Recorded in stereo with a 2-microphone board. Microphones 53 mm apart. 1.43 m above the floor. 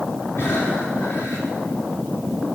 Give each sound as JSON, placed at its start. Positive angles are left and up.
{"t": 0.4, "sound": "breathing", "side_deg": 50, "distance_m": 3.5}